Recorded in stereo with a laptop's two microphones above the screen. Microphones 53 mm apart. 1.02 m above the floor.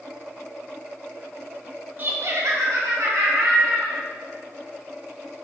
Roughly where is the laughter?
Right.